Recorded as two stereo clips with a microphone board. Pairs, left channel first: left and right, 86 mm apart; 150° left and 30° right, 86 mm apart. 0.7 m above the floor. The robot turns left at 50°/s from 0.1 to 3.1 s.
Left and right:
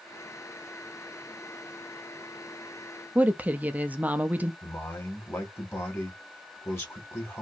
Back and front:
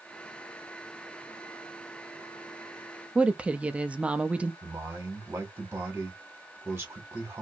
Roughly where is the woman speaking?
Right.